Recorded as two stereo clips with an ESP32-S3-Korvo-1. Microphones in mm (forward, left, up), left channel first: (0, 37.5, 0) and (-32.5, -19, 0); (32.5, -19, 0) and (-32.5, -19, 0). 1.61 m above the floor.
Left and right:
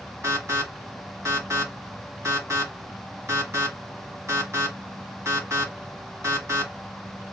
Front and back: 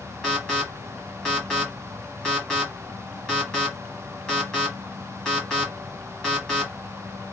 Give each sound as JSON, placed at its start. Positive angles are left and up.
{"t": 0.2, "sound": "an alarm", "azimuth_deg": -75, "distance_m": 1.5}